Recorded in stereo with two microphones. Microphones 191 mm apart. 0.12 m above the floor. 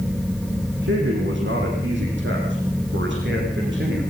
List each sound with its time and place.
0.8 s a man speaking: 70° right (ahead or behind), 5 m